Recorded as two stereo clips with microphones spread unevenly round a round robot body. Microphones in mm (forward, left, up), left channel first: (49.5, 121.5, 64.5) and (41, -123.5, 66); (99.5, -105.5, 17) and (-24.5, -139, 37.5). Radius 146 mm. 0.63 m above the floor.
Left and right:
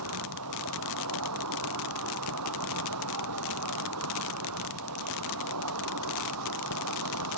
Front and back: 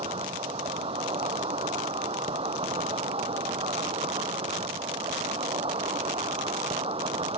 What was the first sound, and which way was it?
An insect, 125° right.